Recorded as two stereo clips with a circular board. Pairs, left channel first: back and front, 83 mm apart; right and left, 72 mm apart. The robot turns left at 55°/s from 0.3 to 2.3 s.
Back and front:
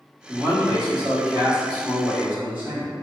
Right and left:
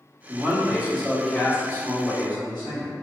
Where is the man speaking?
40° left, 1.1 m; by 2.9 s 70° right, 1.1 m.